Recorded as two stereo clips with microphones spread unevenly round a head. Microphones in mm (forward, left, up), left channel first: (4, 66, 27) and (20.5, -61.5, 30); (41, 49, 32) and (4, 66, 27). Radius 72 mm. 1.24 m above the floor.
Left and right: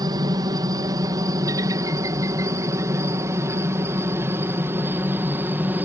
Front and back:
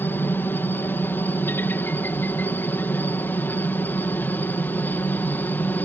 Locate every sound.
0.0 s a helicopter: 35° right; by 5.8 s 10° right